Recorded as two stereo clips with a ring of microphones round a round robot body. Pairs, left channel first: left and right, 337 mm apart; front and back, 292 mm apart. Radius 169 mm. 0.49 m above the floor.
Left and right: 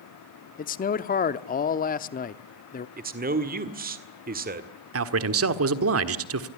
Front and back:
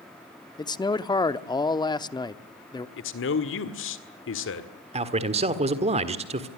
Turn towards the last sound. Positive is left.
turn(degrees=-115)